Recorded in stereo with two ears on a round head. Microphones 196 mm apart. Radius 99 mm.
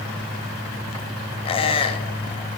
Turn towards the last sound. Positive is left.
turn(degrees=25)  # may be behind; listen again after turning